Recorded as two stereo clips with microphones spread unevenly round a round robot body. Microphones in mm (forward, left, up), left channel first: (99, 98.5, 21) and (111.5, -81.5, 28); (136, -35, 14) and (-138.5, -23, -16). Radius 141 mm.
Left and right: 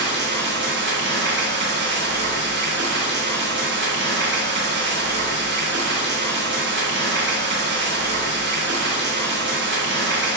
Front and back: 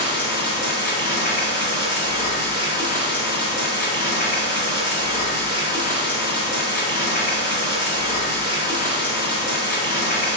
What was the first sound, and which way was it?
Running water, 65° right.